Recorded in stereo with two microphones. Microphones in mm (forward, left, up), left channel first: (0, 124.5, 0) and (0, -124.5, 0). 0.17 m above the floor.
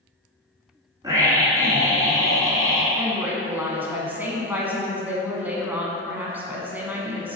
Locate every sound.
1.0 s a scream: 15° right (ahead or behind), 1.5 m
3.0 s a woman speaking: 5° right (ahead or behind), 1.3 m